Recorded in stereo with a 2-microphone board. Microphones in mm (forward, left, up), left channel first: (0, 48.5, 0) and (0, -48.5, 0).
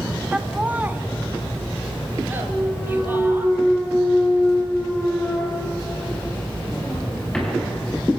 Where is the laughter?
10° right (ahead or behind), 1.2 m; by 3.5 s 20° right (ahead or behind), 5 m.